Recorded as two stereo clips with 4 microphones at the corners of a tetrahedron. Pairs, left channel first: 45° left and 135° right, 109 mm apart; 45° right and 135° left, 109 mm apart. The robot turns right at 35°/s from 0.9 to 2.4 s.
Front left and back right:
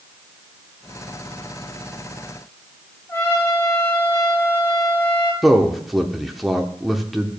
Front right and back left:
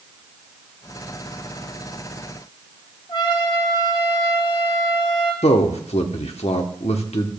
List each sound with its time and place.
3.1 s a trumpet: 15° right, 2 m
5.4 s a man speaking: 45° right, 1.0 m